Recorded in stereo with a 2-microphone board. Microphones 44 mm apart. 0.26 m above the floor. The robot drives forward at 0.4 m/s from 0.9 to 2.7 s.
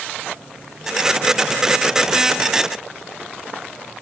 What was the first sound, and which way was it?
Only background noise.